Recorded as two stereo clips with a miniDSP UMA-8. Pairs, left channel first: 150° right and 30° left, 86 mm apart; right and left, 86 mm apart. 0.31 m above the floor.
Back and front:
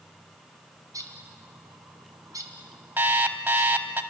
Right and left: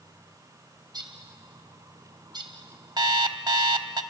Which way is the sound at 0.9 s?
70° left.